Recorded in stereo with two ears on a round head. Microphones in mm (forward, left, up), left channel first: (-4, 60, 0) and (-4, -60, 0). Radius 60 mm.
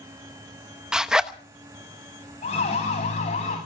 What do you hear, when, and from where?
0.9 s a zipper: 5° right (ahead or behind), 0.8 m
2.4 s a siren: 50° left (ahead or behind), 8 m; by 3.6 s 55° left (ahead or behind), 9 m